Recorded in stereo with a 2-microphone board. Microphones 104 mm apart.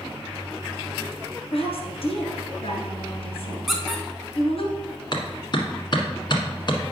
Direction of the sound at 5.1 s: 45° left (ahead or behind).